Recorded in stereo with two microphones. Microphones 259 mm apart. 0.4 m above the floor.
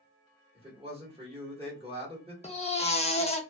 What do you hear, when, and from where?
0.6 s a man speaking: 20° right (ahead or behind), 1.3 m
2.4 s a baby crying: 25° left (ahead or behind), 0.6 m